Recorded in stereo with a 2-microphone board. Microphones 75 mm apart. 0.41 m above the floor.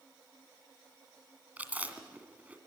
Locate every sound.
1.6 s chewing: 20° right (ahead or behind), 2 m